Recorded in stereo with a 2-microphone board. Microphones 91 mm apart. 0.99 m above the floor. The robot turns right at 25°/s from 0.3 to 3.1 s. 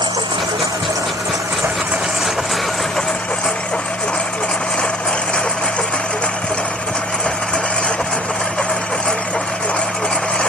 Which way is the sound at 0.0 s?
60° right.